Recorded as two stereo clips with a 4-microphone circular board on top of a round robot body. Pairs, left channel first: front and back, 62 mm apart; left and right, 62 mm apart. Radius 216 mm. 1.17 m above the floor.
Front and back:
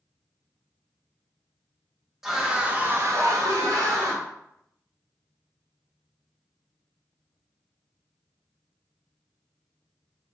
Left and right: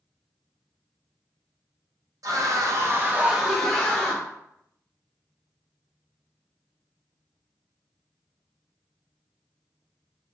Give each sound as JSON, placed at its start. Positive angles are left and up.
{"t": 2.2, "sound": "a scream", "azimuth_deg": -95, "distance_m": 1.0}